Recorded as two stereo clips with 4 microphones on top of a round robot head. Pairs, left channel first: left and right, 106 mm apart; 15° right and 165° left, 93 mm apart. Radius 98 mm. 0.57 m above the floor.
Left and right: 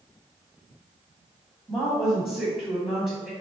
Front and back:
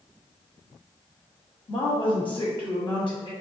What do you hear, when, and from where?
1.7 s a woman speaking: straight ahead, 1.7 m